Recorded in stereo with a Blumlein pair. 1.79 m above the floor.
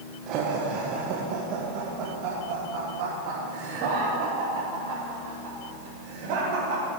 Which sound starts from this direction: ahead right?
Laughter, at 0.3 s.